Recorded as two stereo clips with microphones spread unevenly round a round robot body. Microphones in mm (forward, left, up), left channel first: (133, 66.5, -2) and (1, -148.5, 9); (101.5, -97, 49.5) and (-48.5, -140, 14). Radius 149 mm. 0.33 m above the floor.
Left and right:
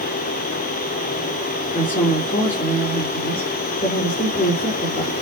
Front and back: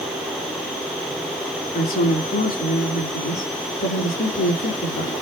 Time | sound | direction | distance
1.7 | a woman speaking | 10° right | 5 m